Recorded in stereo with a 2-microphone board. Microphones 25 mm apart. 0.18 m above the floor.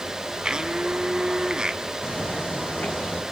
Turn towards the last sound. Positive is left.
turn(degrees=60)  # may be behind; listen again after turning